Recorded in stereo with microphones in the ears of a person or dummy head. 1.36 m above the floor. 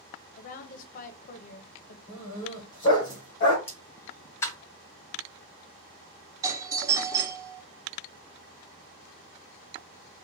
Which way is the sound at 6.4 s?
15° right (ahead or behind).